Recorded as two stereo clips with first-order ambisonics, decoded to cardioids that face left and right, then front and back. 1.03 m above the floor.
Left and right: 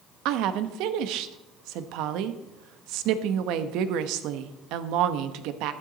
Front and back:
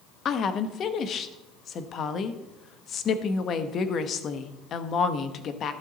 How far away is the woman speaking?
About 1.0 m.